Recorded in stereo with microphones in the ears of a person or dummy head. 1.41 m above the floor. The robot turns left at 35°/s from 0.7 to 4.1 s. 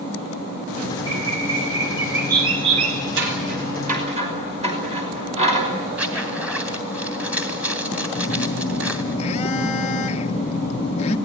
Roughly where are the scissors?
Right.